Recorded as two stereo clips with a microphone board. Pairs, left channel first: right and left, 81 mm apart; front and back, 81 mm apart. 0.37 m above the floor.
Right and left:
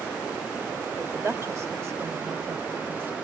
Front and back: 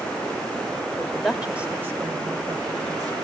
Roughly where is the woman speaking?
Ahead left.